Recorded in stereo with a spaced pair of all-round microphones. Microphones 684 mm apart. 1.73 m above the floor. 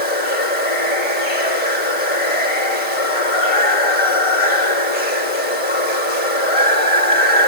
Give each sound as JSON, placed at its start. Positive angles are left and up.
{"t": 0.0, "sound": "running water", "side_deg": 50, "distance_m": 4.0}